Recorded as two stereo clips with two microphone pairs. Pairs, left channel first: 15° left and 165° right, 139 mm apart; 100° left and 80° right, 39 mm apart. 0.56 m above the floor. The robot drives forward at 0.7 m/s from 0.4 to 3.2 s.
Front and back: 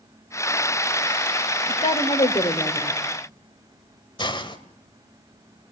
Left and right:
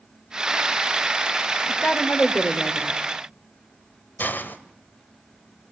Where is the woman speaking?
40° left, 2.5 m; by 2.9 s 65° left, 1.9 m.